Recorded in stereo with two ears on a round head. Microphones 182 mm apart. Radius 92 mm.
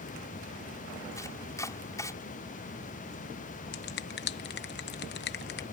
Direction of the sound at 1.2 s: 15° left (ahead or behind).